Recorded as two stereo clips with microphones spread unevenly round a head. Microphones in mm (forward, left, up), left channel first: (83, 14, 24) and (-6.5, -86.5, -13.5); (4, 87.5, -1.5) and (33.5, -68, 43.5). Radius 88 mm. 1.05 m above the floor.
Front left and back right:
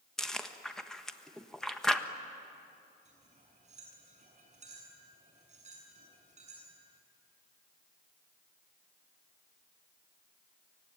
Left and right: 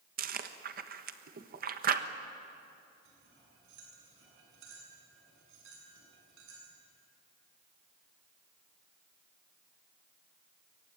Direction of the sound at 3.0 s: 95° right.